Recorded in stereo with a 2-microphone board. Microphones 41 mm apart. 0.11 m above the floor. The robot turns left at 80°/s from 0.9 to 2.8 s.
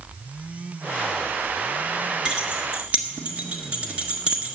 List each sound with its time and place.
2.2 s keys jangling: 20° right (ahead or behind), 1.3 m; by 4.6 s 35° right (ahead or behind), 1.3 m